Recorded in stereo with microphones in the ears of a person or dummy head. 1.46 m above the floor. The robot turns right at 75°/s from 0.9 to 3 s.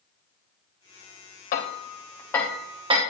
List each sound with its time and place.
1.5 s hammering: 45° left (ahead or behind), 1.2 m; by 3.0 s 25° right (ahead or behind), 1.2 m